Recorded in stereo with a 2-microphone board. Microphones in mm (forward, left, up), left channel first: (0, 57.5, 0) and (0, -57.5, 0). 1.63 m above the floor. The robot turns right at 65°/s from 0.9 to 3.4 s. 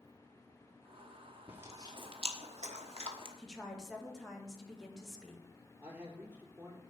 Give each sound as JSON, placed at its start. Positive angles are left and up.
{"t": 1.5, "sound": "chewing", "side_deg": -15, "distance_m": 1.3}
{"t": 3.4, "sound": "a woman speaking", "side_deg": 5, "distance_m": 2.0}
{"t": 5.8, "sound": "a man speaking", "side_deg": -20, "distance_m": 4.0}